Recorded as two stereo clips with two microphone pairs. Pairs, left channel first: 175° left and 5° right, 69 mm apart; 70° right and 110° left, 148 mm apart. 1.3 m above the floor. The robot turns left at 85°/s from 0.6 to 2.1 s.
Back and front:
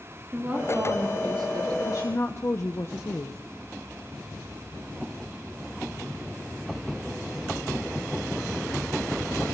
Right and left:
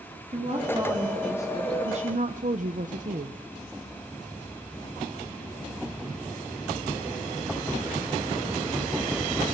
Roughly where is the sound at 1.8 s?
Behind left.